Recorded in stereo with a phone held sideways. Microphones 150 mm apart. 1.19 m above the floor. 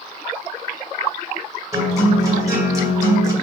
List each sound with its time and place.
1.7 s a guitar: 20° right (ahead or behind), 2.5 m